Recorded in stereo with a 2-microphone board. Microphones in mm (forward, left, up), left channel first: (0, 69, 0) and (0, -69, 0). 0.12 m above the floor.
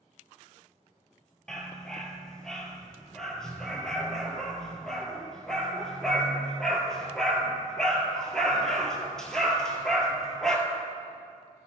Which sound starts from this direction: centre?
A dog barking, at 1.5 s.